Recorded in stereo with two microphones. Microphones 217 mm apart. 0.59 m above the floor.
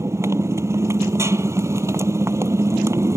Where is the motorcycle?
15° right (ahead or behind).